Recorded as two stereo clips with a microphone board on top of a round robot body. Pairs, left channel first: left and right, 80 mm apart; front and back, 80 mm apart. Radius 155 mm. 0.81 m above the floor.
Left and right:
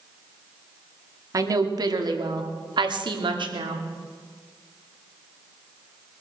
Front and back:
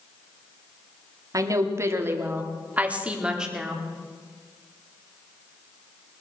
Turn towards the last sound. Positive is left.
turn(degrees=-95)